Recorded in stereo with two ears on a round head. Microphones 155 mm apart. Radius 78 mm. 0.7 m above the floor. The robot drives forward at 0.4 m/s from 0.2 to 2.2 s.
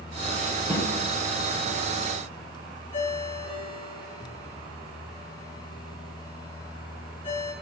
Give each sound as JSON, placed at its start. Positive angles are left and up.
{"t": 0.7, "sound": "a snare drum", "side_deg": 15, "distance_m": 1.7}
{"t": 2.9, "sound": "a ringtone", "side_deg": 45, "distance_m": 7.5}